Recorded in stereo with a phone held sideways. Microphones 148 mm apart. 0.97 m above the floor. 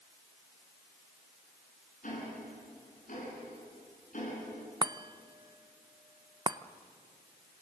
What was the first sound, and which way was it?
Ticking, 55° left (ahead or behind).